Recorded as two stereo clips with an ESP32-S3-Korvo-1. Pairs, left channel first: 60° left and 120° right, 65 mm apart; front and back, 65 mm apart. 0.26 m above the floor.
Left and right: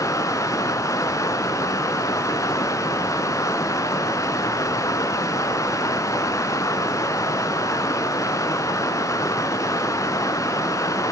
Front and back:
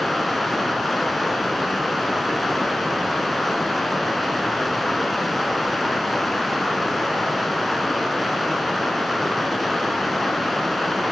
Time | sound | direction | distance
0.0 | running water | 90° left | 0.9 m